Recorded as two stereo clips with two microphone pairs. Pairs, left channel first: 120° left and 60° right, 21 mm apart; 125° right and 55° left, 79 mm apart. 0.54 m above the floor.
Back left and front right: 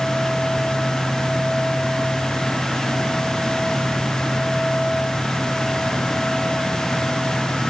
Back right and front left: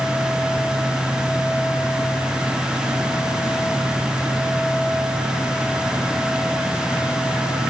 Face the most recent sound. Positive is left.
No sound to turn to.